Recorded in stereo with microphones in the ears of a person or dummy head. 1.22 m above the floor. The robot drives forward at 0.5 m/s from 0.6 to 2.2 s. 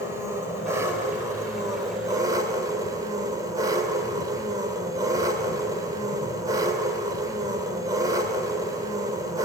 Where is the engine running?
15° right (ahead or behind), 3.5 m; by 9.4 s 20° right (ahead or behind), 2.5 m.